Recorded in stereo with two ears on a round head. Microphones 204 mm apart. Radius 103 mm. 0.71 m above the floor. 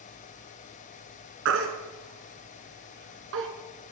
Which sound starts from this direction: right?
A baby crying, at 1.4 s.